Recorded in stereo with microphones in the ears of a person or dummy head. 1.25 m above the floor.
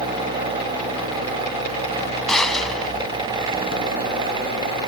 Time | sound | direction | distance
2.3 | a gunshot | 10° left (ahead or behind) | ?